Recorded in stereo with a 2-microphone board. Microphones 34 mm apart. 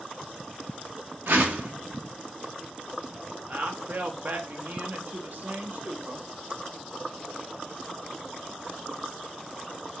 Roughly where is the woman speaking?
Right.